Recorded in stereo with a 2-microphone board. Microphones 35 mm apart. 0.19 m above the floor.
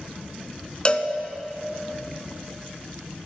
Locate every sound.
0.8 s a cowbell: 30° left (ahead or behind), 0.6 m